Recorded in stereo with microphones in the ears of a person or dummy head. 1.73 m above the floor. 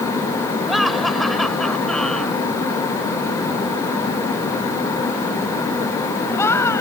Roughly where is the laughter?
Centre.